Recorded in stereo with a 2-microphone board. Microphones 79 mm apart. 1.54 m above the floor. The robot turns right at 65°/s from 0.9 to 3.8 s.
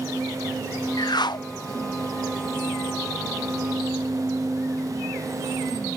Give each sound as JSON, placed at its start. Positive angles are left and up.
{"t": 1.0, "sound": "a whoosh", "azimuth_deg": 70}